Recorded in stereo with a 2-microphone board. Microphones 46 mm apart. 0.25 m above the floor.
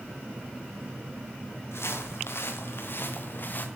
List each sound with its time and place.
1.7 s footsteps: 75° left (ahead or behind), 2.5 m; by 3.7 s 45° left (ahead or behind), 1.7 m